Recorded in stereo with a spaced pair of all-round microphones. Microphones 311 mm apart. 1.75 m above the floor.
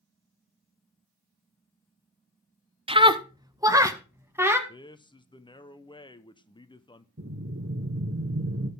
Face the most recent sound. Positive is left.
turn(degrees=-45)  # may be behind; listen again after turning